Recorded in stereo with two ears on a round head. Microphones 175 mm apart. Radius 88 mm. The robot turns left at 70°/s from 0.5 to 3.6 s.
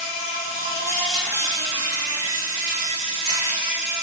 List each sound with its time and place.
0.0 s an insect: 45° left, 0.8 m; by 4.0 s 170° right, 0.8 m